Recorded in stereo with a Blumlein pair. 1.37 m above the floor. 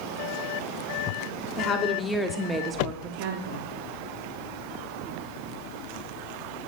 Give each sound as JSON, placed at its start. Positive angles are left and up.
{"t": 1.6, "sound": "a woman speaking", "azimuth_deg": 30, "distance_m": 1.0}